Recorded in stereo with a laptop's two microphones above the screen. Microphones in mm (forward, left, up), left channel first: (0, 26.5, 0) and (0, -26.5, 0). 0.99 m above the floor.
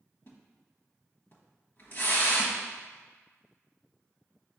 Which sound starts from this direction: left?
A splash, at 0.3 s.